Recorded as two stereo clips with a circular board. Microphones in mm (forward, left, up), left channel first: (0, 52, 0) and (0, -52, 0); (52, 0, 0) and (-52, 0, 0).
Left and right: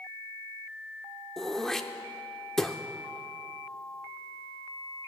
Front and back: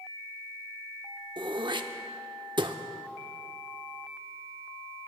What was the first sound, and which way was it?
Throat clearing, 175° left.